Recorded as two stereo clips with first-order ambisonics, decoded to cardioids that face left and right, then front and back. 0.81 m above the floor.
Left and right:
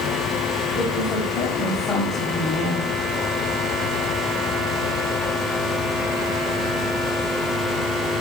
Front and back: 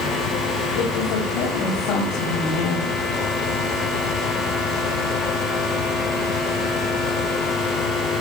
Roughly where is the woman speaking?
Ahead.